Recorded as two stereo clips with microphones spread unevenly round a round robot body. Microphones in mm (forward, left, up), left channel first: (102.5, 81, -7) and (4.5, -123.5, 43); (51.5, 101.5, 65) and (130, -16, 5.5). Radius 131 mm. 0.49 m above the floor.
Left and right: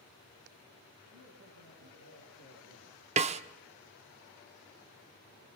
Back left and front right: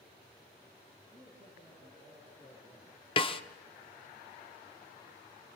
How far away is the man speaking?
About 9.5 m.